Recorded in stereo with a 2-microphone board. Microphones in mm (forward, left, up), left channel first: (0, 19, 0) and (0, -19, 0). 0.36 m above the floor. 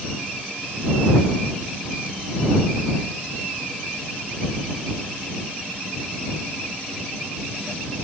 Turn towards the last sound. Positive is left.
No sound to turn to.